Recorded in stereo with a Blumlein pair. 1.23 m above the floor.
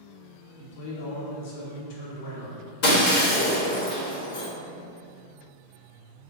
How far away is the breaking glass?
About 0.9 m.